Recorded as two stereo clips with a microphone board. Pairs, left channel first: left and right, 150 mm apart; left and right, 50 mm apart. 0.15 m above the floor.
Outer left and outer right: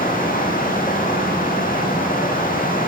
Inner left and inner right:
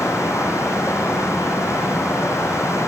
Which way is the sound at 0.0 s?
60° left (ahead or behind).